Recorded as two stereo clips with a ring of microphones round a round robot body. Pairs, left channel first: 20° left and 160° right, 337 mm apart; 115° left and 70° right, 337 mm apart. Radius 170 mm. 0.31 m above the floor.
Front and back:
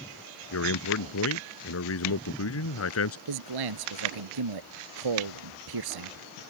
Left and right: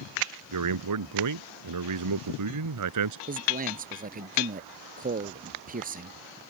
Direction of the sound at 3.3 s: 135° right.